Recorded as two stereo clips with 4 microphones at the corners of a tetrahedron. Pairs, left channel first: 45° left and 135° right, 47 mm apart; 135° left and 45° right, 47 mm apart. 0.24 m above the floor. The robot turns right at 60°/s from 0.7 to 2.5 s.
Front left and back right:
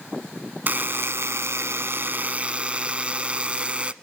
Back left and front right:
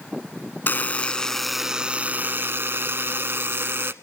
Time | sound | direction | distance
0.7 | a buzzer | straight behind | 0.8 m